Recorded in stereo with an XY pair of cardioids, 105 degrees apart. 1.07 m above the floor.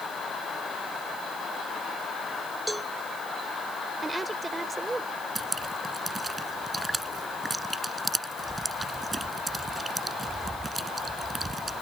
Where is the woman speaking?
25° right.